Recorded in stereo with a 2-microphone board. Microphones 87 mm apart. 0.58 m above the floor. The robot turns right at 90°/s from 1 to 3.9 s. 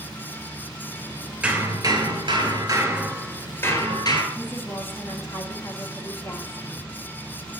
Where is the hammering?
160° right, 2 m; by 4.2 s 60° left, 2 m.